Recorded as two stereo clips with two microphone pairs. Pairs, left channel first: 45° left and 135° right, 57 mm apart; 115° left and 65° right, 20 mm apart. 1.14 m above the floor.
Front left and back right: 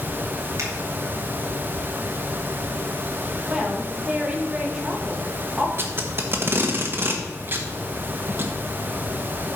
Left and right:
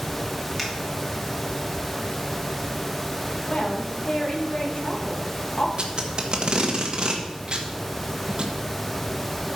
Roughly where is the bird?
No bird in this recording.